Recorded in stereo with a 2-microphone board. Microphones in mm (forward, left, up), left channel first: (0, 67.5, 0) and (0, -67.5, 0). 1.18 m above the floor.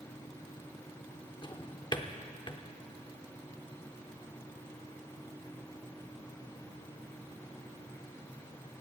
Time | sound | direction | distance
1.4 | a drawer | 35° left (ahead or behind) | 0.9 m